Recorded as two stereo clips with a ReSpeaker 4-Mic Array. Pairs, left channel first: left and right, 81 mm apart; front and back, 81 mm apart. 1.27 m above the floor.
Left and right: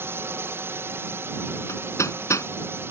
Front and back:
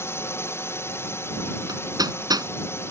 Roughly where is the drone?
Ahead right.